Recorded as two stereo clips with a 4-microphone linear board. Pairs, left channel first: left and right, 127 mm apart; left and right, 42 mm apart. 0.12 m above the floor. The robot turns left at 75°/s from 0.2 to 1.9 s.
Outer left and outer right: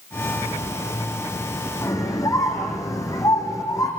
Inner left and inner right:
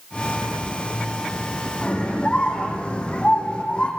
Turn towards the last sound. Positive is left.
turn(degrees=25)  # may be behind; listen again after turning